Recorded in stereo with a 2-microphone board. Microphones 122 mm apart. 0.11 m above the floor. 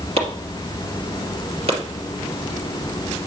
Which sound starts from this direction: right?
Chopping, at 0.2 s.